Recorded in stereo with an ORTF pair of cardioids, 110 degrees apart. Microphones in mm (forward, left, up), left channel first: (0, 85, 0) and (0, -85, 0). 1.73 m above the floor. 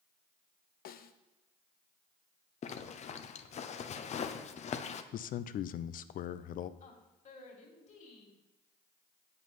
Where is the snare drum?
60° left, 0.8 m.